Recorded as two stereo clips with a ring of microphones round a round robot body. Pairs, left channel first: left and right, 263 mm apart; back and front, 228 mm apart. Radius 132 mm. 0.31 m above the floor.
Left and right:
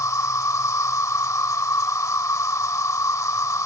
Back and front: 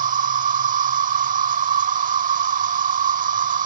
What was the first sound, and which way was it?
An insect, 20° left.